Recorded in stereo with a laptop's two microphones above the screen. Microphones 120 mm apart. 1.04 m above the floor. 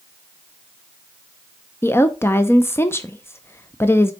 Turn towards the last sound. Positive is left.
turn(degrees=20)  # may be behind; listen again after turning